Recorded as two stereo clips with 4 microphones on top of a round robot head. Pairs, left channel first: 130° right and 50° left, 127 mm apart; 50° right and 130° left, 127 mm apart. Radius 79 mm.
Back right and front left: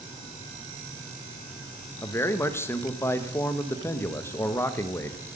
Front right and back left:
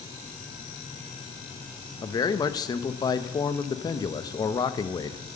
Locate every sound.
2.0 s a man speaking: 75° right, 0.9 m